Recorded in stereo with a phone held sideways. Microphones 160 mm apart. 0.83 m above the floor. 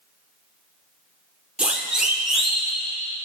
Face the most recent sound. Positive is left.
turn(degrees=0)  # may be behind; listen again after turning